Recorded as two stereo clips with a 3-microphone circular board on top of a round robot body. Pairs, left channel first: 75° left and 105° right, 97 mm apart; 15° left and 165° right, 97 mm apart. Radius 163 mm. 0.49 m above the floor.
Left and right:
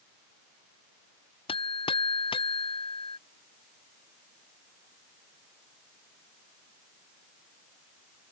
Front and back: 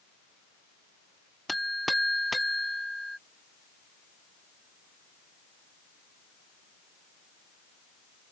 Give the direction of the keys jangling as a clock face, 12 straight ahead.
I don't hear keys jangling.